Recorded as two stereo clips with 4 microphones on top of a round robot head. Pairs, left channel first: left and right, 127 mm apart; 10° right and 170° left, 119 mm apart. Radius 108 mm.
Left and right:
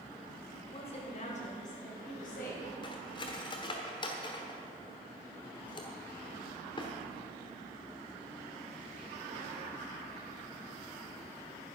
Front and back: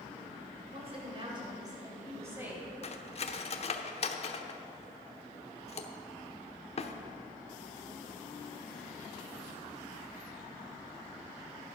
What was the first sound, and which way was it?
A woman speaking, 135° left.